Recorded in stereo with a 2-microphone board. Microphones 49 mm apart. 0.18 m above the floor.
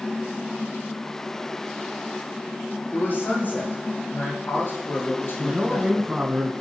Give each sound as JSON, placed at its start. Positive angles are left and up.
{"t": 2.9, "sound": "a man speaking", "side_deg": 50, "distance_m": 6.0}
{"t": 5.4, "sound": "a man speaking", "side_deg": -20, "distance_m": 1.6}